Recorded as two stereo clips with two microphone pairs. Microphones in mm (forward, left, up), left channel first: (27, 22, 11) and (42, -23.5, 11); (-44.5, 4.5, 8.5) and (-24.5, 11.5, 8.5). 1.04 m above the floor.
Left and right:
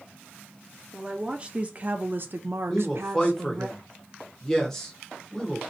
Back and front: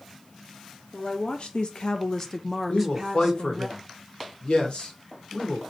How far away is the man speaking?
About 1.2 m.